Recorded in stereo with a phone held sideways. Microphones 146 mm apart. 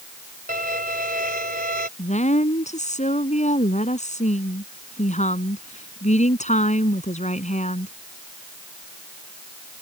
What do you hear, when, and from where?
0.5 s a violin: 80° right
2.0 s a woman speaking: 55° left (ahead or behind)